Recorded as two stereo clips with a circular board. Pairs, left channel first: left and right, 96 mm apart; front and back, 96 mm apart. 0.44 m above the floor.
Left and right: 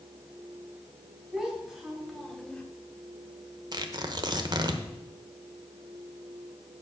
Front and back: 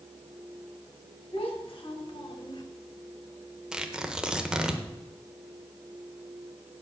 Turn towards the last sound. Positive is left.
turn(degrees=-100)